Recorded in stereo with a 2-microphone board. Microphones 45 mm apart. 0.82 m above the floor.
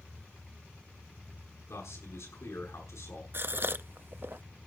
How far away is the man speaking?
About 7 m.